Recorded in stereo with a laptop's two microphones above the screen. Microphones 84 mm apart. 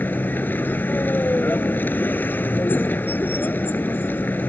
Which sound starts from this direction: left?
A vehicle, at 0.0 s.